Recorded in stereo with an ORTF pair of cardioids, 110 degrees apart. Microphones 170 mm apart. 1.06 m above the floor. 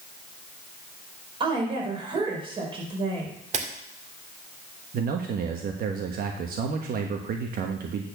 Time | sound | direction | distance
1.4 | a woman speaking | 30° right | 4.5 m
3.5 | a camera shutter | 40° right | 2 m
4.9 | a man speaking | 60° right | 1.2 m